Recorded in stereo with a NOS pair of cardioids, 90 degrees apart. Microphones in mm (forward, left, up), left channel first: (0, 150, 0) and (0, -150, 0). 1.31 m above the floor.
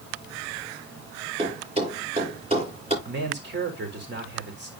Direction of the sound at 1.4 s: 20° right.